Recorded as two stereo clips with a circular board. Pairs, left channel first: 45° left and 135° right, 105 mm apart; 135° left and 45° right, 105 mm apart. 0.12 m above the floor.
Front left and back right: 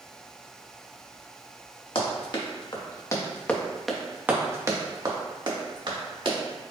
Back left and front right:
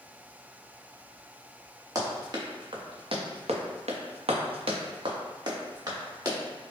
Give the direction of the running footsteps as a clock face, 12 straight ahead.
12 o'clock.